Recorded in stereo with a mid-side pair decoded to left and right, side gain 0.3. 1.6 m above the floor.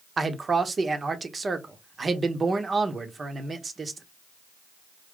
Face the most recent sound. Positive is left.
turn(degrees=-50)